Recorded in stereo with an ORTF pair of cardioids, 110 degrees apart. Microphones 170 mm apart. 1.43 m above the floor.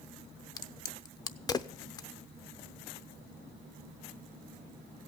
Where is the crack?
25° left, 0.6 m.